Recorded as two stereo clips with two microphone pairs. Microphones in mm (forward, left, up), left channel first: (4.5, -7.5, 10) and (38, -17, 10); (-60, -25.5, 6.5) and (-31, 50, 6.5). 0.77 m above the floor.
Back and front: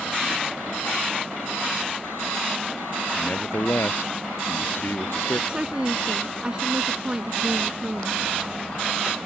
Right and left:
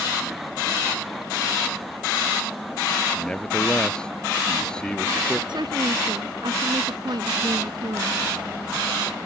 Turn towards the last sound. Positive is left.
turn(degrees=45)